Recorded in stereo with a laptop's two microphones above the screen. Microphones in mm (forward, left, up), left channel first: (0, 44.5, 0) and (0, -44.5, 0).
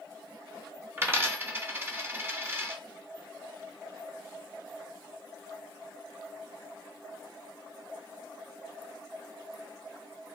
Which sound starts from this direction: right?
A dropped coin, at 1.0 s.